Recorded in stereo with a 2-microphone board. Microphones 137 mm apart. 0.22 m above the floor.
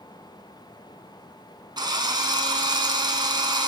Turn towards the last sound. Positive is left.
turn(degrees=-30)  # may be behind; listen again after turning